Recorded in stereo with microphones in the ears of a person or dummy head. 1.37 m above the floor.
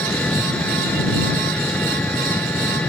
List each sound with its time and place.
0.0 s an engine running: 10° left (ahead or behind)